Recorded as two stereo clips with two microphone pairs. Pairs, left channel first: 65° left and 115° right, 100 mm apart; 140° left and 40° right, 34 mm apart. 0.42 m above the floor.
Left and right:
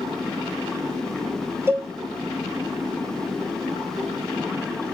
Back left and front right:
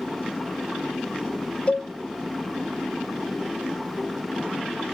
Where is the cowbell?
175° right, 1.0 m.